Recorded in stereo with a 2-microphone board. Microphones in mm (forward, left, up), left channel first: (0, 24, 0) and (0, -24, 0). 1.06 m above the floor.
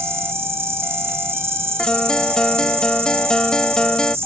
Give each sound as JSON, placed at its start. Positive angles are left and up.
{"t": 0.0, "sound": "an insect", "side_deg": -60}
{"t": 1.8, "sound": "a guitar", "side_deg": 15}